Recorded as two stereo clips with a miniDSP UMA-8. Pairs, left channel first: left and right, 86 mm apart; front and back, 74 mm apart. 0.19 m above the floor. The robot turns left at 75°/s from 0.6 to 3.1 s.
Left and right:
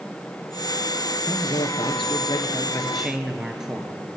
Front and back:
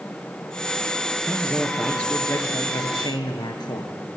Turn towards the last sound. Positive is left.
turn(degrees=-10)